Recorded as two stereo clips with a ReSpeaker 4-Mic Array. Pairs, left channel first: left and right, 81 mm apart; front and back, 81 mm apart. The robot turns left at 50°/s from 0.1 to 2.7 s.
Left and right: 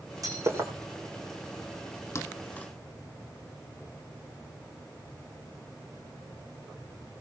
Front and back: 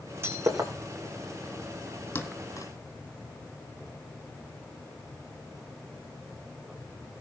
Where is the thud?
55° left, 1.8 m; by 2.7 s 25° left, 1.8 m.